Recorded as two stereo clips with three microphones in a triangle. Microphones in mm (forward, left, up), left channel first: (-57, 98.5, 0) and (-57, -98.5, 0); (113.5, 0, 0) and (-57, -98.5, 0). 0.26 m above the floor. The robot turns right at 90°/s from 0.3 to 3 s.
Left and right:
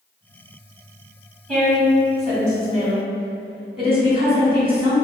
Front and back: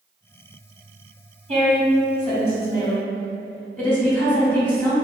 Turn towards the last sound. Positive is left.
turn(degrees=-50)